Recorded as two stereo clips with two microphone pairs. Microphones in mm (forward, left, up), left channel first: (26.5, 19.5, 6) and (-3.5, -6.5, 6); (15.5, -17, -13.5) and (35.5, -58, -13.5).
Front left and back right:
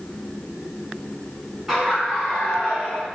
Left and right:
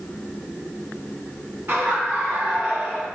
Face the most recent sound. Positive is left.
turn(degrees=10)